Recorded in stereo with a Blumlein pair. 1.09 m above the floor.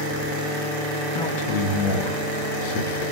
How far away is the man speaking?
About 1.6 m.